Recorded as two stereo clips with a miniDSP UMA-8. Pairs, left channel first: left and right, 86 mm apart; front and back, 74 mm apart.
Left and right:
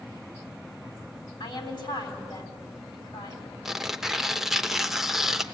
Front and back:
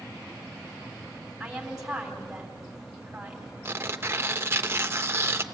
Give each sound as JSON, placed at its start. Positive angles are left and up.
{"t": 1.4, "sound": "a woman speaking", "azimuth_deg": 100, "distance_m": 3.5}
{"t": 3.6, "sound": "tearing paper", "azimuth_deg": -175, "distance_m": 0.8}